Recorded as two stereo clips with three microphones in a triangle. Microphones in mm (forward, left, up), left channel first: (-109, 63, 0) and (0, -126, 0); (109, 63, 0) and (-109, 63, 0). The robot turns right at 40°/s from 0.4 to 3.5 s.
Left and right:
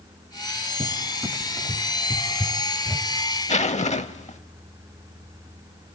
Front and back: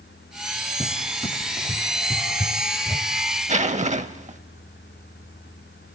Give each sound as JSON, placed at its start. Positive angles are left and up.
{"t": 0.8, "sound": "a cupboard door", "azimuth_deg": -45, "distance_m": 1.3}
{"t": 3.5, "sound": "a zipper", "azimuth_deg": 150, "distance_m": 0.7}